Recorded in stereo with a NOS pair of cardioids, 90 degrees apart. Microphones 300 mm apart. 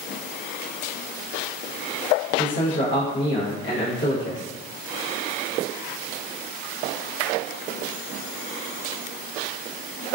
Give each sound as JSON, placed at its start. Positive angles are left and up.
{"t": 2.4, "sound": "a man speaking", "azimuth_deg": 40, "distance_m": 0.8}